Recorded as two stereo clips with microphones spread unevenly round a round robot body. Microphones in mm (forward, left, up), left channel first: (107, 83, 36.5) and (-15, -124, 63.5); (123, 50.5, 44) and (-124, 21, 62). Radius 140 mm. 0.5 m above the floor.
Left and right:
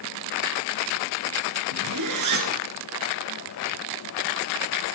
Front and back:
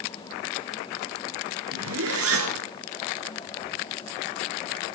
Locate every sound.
1.7 s a zipper: 130° right, 2 m